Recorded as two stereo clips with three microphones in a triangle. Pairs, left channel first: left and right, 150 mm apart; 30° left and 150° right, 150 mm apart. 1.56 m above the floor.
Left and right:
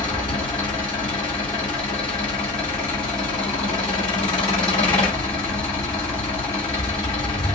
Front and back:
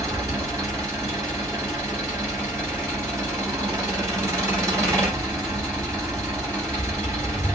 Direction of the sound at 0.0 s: 145° left.